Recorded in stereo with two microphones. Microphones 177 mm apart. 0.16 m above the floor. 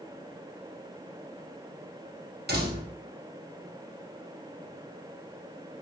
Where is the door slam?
70° right (ahead or behind), 4.5 m.